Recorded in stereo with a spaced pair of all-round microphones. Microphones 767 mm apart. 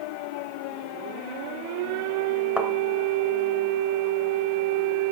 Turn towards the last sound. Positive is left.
turn(degrees=0)  # may be behind; listen again after turning